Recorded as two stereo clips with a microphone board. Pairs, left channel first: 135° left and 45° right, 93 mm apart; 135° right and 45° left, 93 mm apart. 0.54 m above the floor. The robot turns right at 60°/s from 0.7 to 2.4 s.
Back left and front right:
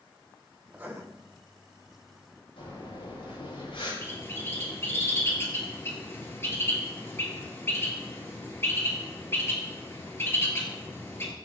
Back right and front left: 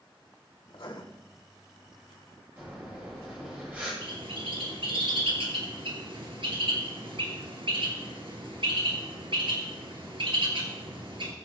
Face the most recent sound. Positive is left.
turn(degrees=70)